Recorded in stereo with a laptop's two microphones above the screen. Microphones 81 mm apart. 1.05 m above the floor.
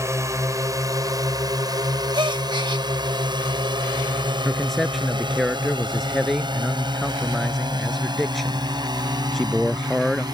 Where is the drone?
40° right (ahead or behind); by 10.3 s 60° right (ahead or behind).